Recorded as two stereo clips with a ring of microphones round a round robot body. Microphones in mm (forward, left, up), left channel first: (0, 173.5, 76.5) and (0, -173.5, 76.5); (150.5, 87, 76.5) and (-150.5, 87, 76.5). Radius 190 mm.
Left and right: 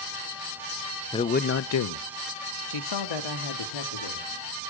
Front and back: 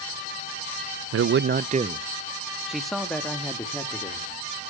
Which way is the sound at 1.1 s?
165° left.